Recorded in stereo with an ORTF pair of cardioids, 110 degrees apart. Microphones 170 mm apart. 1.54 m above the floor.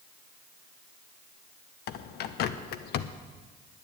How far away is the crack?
I don't hear a crack.